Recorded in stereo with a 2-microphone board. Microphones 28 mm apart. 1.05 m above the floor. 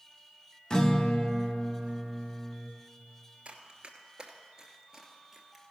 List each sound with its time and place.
0.7 s a guitar: 30° left (ahead or behind), 0.7 m
3.5 s running footsteps: 40° right (ahead or behind), 1.3 m; by 5.7 s 5° right (ahead or behind), 1.5 m